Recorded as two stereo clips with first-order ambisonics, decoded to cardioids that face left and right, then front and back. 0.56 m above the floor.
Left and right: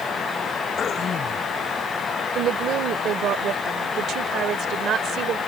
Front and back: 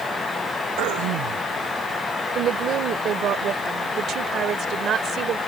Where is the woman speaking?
130° right.